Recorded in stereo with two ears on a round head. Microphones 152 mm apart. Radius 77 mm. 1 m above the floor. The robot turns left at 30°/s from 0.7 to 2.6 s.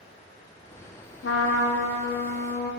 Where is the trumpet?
100° left, 0.8 m; by 2.7 s 55° left, 0.8 m.